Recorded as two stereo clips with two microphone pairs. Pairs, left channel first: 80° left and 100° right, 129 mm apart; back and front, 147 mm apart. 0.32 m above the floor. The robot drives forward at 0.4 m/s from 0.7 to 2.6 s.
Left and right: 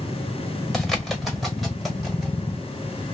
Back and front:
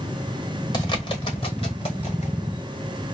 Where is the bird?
165° left, 1.3 m; by 2.3 s 175° left, 1.7 m.